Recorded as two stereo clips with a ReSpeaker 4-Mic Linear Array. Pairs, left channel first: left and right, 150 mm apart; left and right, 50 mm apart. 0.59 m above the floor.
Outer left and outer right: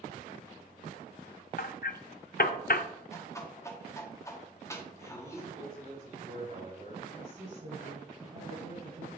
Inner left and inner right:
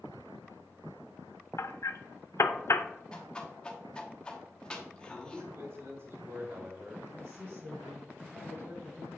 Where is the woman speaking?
70° right (ahead or behind), 3 m.